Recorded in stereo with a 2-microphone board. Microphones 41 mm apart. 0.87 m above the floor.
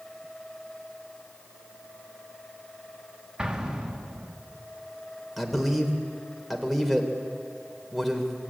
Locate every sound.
3.4 s an explosion: 15° right (ahead or behind), 1.9 m
5.4 s a man speaking: centre (ahead or behind), 2.5 m